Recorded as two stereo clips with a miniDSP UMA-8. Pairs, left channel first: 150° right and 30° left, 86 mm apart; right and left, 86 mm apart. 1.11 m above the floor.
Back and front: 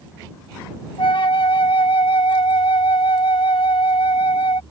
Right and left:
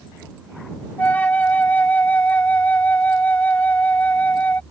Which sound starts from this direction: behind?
A flute, at 1.0 s.